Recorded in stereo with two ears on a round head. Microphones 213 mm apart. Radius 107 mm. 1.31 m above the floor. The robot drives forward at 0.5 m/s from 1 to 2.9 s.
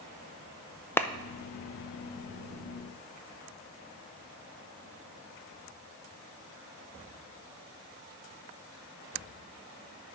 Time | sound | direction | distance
1.0 | a clap | 10° left (ahead or behind) | 0.5 m